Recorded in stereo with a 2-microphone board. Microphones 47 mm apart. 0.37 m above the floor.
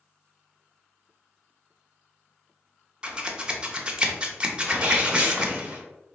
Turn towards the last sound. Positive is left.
turn(degrees=-25)  # may be behind; listen again after turning